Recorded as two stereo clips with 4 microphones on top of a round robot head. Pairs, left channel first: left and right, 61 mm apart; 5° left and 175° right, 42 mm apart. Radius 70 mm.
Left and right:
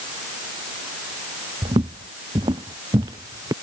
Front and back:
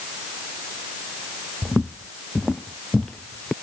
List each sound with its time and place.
1.6 s footsteps: 90° right; by 3.5 s 70° right